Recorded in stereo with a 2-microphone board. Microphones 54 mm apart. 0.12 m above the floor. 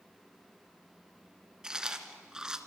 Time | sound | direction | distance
1.6 | chewing | 15° right (ahead or behind) | 1.7 m